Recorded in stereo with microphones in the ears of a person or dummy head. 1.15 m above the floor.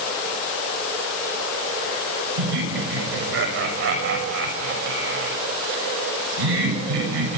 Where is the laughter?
65° right (ahead or behind), 7 m.